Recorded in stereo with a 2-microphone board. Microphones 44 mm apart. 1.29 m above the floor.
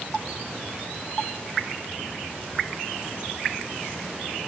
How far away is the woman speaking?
No woman speaking in this recording.